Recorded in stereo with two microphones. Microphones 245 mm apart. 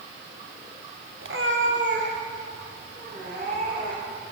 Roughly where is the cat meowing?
Right.